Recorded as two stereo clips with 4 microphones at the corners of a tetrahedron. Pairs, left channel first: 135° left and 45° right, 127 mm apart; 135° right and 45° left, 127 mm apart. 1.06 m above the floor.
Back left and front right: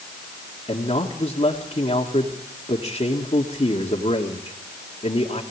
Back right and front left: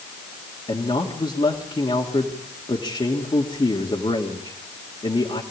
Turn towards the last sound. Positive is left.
turn(degrees=180)